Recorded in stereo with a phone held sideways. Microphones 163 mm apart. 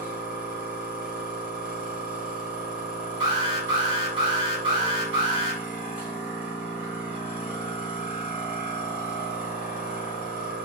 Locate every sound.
0.0 s a machine running: 5° right (ahead or behind), 1.2 m
3.2 s an alarm: 35° right (ahead or behind), 1.8 m